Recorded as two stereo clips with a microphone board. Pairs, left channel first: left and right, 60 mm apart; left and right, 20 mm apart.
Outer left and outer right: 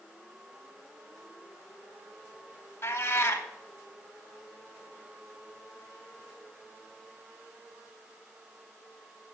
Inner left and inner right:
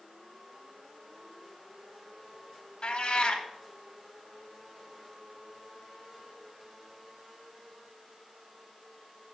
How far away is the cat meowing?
About 0.6 m.